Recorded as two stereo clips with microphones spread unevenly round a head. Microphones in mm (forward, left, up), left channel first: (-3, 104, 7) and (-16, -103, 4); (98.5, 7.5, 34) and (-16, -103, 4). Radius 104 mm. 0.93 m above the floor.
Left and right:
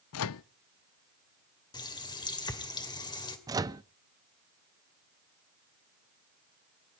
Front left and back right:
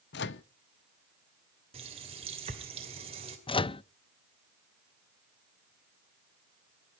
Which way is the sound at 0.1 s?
75° left.